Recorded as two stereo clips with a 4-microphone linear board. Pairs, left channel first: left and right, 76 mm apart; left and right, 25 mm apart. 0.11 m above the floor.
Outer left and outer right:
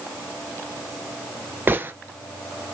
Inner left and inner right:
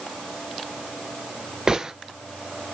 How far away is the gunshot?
About 0.7 m.